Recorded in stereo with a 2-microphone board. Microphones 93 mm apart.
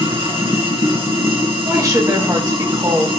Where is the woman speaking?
40° right (ahead or behind), 3 m.